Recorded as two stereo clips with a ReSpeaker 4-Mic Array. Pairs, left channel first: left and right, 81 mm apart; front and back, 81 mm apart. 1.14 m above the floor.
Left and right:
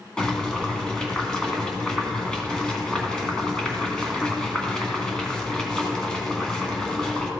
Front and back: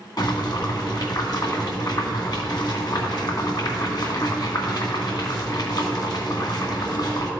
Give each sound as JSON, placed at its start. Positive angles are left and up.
{"t": 0.2, "sound": "boiling", "azimuth_deg": 10, "distance_m": 1.7}